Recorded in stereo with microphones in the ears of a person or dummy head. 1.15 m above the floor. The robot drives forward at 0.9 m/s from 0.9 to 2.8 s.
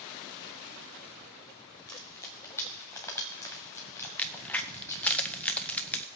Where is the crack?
10° left (ahead or behind), 0.8 m.